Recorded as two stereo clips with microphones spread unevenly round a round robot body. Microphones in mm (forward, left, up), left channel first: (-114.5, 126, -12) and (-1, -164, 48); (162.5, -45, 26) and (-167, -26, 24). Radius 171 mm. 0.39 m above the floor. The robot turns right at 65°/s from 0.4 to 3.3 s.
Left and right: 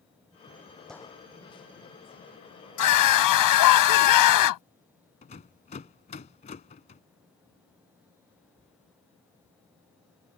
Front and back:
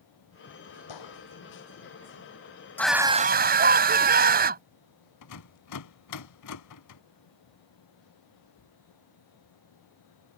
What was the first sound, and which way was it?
A gunshot, 20° left.